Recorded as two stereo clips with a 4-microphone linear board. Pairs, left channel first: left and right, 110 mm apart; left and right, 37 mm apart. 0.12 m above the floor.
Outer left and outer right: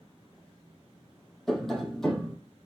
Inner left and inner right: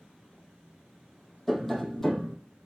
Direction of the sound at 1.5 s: 5° left (ahead or behind).